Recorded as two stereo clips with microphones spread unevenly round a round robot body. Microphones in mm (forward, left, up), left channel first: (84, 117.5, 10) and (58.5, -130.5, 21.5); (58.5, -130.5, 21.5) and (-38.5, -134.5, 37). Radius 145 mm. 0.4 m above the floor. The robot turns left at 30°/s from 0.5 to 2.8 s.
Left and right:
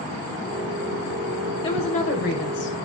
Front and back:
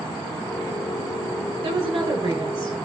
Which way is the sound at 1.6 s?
150° left.